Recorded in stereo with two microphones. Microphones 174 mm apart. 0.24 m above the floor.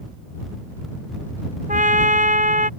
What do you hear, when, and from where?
1.7 s a trumpet: 50° right (ahead or behind)